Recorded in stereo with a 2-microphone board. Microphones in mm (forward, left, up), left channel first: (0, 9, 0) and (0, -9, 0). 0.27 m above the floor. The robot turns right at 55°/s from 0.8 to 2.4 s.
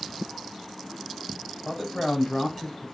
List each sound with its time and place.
1.6 s a man speaking: 10° right (ahead or behind), 1.1 m; by 2.9 s 10° left (ahead or behind), 1.1 m